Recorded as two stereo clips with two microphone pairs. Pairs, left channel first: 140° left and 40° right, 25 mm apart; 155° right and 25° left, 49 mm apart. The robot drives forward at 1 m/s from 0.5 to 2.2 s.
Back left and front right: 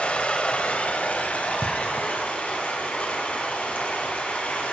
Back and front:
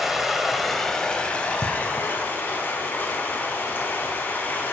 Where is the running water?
110° left, 1.3 m; by 4.7 s 150° left, 2.5 m.